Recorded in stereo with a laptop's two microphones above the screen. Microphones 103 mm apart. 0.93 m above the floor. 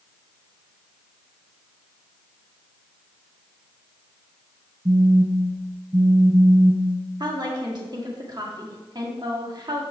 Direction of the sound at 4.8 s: 65° right (ahead or behind).